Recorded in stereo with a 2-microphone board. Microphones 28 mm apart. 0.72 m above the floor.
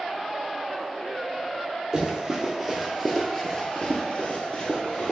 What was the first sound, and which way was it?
Running footsteps, 20° right (ahead or behind).